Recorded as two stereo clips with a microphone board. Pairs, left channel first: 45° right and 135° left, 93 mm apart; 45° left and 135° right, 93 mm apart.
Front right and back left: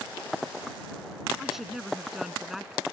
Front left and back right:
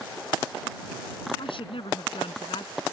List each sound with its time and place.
1.4 s a woman speaking: 50° left